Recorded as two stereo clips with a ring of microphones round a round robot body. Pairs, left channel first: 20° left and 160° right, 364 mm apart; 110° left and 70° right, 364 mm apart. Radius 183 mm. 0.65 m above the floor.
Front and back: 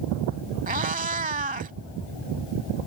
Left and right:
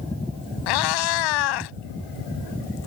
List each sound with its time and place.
0.7 s a cat meowing: 135° left